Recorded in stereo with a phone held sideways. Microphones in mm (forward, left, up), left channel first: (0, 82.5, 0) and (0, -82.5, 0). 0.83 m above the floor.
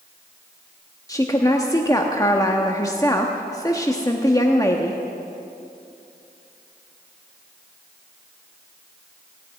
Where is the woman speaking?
20° left (ahead or behind), 1.0 m.